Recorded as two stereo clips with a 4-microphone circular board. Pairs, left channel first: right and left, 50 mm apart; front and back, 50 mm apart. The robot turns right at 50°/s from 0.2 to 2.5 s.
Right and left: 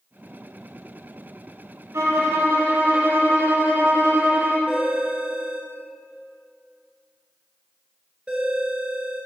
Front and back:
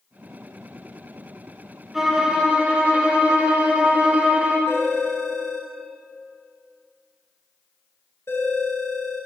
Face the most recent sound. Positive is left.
turn(degrees=20)